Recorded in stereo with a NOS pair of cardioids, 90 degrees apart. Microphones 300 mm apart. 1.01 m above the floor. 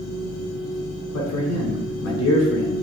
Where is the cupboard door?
No cupboard door in this recording.